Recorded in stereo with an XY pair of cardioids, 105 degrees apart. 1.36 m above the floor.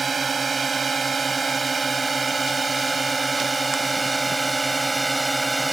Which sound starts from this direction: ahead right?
A drone, at 0.0 s.